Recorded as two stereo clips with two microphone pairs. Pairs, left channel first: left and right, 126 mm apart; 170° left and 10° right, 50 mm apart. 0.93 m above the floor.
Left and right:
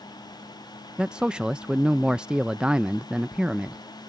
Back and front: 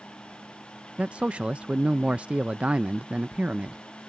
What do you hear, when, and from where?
1.0 s a man speaking: 15° right